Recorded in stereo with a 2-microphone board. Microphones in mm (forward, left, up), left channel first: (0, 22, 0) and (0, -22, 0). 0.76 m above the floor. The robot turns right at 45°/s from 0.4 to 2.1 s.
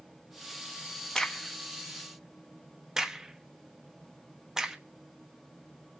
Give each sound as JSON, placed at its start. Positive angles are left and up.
{"t": 1.1, "sound": "a crack", "side_deg": 15, "distance_m": 1.1}